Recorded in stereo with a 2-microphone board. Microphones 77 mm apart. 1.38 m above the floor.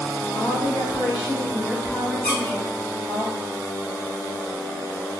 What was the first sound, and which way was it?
A woman speaking, 80° left.